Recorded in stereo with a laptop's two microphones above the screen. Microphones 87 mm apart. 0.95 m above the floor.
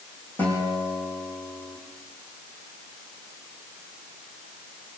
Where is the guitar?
20° left (ahead or behind), 9 m.